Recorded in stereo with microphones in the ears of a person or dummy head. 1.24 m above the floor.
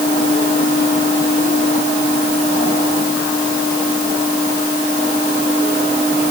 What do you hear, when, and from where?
Only background noise.